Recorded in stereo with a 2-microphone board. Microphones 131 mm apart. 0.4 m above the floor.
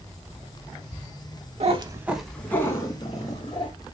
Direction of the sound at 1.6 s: 55° right (ahead or behind).